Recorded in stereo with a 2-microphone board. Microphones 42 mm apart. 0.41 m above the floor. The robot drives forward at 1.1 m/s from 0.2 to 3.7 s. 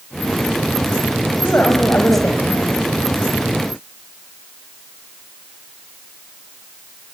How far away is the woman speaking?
About 3 m.